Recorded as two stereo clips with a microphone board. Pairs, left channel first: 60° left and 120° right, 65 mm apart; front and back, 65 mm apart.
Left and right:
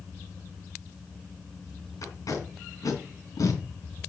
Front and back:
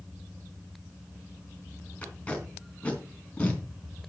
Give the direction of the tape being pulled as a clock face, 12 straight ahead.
10 o'clock.